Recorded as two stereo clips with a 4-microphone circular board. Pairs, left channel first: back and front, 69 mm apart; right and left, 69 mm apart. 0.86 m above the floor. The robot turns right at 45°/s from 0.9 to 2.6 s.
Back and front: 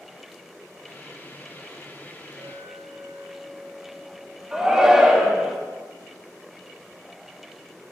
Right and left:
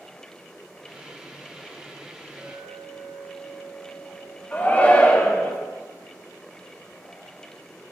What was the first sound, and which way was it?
A clink, 40° left.